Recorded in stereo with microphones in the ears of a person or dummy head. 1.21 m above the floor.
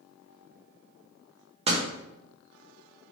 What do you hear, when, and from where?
1.7 s a door slam: 25° right (ahead or behind), 1.1 m